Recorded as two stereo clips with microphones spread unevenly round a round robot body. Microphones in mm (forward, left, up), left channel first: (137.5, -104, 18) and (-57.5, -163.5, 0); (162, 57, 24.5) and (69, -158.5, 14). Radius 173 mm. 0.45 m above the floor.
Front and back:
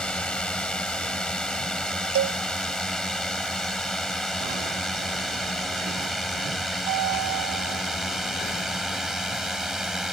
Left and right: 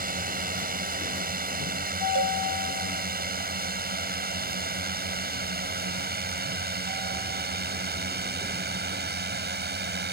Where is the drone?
70° right; by 10.1 s 75° right.